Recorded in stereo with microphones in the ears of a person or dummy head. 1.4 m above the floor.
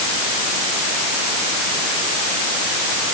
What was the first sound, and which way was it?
Only background noise.